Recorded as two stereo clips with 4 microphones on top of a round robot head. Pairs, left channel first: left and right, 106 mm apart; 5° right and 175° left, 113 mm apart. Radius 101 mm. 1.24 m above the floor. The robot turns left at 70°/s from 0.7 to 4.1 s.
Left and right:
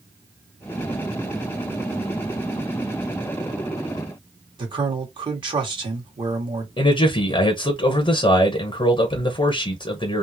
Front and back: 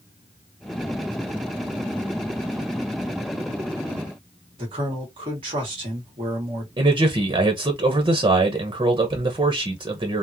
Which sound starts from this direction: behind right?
A man speaking, at 4.6 s.